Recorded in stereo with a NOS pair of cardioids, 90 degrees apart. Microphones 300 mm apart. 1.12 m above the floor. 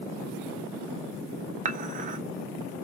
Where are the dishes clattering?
25° right, 0.6 m.